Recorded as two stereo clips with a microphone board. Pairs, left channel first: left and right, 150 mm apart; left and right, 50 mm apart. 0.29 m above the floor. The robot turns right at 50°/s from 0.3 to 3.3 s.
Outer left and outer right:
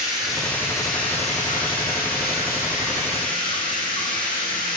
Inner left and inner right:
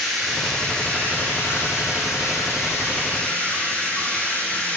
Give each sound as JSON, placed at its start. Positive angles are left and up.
{"t": 0.0, "sound": "running water", "azimuth_deg": 0, "distance_m": 5.5}